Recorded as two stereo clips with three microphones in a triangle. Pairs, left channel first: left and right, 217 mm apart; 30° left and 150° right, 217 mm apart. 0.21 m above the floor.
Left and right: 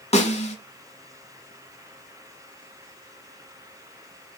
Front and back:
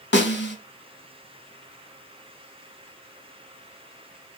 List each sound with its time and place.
0.1 s a snare drum: 40° left, 0.8 m